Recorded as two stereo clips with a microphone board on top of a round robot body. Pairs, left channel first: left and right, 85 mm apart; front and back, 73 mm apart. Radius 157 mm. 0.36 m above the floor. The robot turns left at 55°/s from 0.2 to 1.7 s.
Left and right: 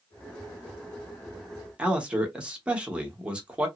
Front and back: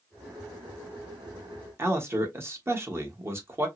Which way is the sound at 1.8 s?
160° right.